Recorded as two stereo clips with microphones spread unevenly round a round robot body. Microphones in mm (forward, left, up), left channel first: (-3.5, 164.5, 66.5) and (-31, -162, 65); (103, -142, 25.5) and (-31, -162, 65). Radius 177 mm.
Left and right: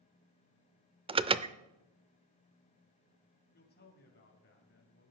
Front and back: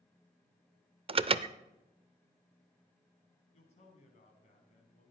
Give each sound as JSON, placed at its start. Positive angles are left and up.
{"t": 1.1, "sound": "an alarm", "azimuth_deg": -145, "distance_m": 0.6}
{"t": 3.5, "sound": "a man speaking", "azimuth_deg": 25, "distance_m": 3.5}